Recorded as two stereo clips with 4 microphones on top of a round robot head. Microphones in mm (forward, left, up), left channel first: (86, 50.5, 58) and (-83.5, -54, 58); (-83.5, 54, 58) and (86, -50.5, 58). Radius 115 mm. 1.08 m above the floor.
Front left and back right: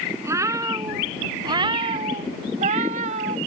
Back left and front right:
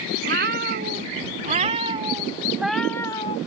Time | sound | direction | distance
0.2 | a cat meowing | 75° right | ?